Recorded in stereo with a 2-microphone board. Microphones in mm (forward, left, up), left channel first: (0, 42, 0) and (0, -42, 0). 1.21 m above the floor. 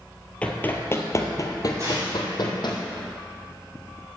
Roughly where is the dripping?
No dripping in this recording.